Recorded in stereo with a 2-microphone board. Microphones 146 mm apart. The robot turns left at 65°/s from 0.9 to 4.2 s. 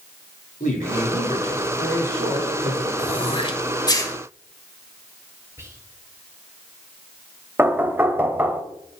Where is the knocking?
15° right (ahead or behind), 0.8 m.